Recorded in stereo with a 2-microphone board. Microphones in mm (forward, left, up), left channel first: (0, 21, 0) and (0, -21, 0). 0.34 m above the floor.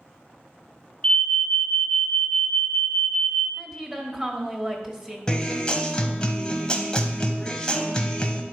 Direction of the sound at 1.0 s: 20° left (ahead or behind).